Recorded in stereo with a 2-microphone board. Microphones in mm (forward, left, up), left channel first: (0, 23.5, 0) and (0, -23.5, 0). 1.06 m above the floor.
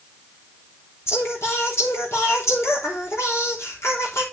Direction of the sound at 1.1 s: 70° left (ahead or behind).